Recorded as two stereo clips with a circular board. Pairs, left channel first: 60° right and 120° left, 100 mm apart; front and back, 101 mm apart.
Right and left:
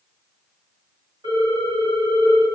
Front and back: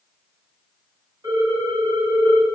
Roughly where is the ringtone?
Behind left.